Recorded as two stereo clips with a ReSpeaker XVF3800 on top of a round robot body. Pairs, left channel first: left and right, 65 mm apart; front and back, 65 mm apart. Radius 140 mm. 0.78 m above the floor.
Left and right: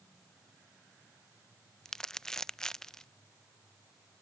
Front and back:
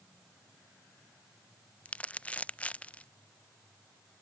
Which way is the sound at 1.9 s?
20° left.